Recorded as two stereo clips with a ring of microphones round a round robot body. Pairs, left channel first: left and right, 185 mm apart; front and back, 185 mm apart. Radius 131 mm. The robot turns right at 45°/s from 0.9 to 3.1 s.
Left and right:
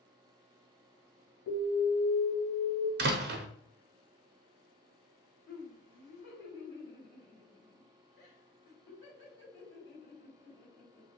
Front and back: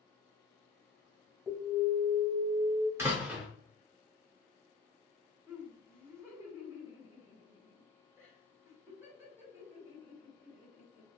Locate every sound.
1.5 s an alarm: 100° left, 2.0 m; by 2.9 s 165° left, 2.0 m
3.0 s a door slam: 105° right, 0.5 m; by 3.5 s 100° right, 0.5 m
5.5 s laughter: 105° left, 1.7 m